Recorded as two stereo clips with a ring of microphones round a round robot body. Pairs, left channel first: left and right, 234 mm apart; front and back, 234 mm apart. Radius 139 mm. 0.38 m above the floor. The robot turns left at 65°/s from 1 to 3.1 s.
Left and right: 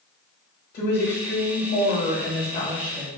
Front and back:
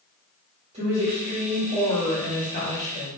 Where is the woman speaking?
125° left, 1.5 m; by 3.1 s 10° right, 1.5 m.